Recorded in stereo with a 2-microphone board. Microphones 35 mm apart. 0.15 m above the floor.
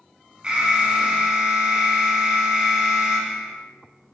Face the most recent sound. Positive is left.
turn(degrees=-25)  # may be behind; listen again after turning